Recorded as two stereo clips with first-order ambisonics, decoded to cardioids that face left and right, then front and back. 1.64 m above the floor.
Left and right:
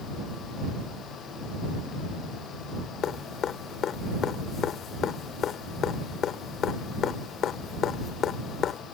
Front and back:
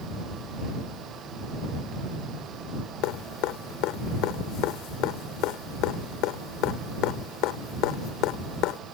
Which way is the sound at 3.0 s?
30° left.